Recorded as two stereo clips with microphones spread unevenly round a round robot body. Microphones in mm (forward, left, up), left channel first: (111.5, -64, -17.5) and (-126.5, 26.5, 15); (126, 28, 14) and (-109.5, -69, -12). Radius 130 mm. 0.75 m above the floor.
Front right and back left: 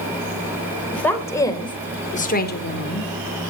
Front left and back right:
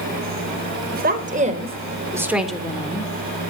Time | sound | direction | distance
0.9 | a woman speaking | 105° right | 3.5 m